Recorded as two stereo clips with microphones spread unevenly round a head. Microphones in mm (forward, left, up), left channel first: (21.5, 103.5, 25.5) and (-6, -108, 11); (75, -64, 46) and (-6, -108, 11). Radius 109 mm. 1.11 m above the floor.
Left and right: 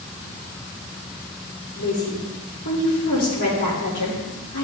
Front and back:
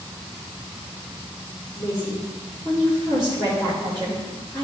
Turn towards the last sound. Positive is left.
turn(degrees=105)